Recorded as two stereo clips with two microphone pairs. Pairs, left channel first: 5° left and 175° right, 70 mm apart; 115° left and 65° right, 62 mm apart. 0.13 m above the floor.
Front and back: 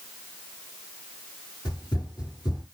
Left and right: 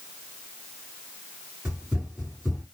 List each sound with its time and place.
1.6 s running footsteps: 10° left, 3.5 m